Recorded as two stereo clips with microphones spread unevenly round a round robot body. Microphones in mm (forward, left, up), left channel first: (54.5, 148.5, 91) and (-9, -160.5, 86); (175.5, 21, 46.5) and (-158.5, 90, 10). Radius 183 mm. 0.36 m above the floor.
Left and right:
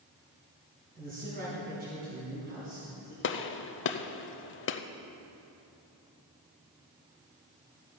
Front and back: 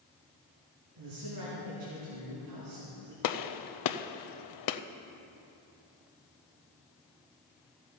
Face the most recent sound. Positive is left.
turn(degrees=25)